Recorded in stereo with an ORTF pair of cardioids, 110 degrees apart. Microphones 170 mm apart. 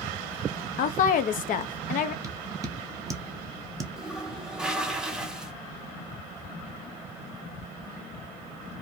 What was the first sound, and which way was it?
A woman speaking, 55° left.